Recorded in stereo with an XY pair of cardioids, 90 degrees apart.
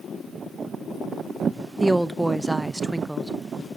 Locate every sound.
1.8 s a woman speaking: 15° right, 0.5 m